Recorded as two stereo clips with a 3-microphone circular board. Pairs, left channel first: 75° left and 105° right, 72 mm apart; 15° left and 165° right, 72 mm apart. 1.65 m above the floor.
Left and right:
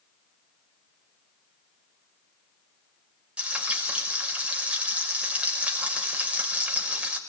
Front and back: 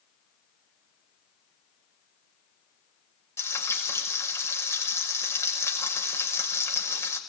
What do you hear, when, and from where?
3.4 s frying: 30° right, 6 m